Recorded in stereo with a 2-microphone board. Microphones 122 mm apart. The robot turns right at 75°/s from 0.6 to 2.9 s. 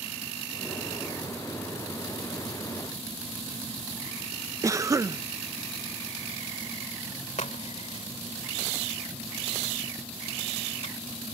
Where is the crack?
75° left (ahead or behind).